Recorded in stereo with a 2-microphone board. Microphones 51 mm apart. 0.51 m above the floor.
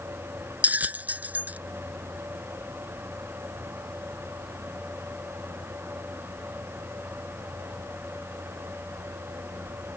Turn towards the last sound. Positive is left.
turn(degrees=-30)  # may be behind; listen again after turning